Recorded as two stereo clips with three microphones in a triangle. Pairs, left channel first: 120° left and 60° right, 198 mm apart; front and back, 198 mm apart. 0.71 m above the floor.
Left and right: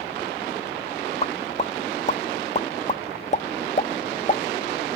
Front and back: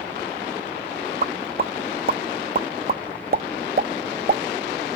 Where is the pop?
160° left, 0.5 m.